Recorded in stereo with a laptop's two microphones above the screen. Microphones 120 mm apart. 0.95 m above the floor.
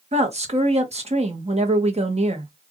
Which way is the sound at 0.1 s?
55° right (ahead or behind).